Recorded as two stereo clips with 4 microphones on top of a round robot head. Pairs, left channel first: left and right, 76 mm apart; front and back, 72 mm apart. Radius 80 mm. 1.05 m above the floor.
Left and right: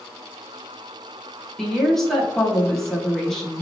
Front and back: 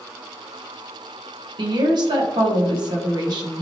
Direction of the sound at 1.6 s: 175° left.